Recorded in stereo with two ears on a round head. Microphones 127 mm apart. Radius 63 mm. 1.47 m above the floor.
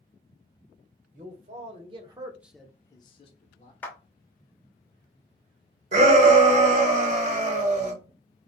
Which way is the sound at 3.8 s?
10° left (ahead or behind).